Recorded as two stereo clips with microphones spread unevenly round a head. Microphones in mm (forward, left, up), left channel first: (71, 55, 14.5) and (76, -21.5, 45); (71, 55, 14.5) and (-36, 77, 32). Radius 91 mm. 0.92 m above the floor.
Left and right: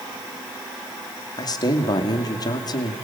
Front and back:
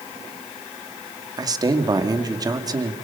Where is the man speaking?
110° left, 2 m.